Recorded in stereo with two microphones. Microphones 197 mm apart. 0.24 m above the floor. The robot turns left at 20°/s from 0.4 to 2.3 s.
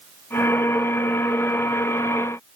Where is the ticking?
No ticking in this recording.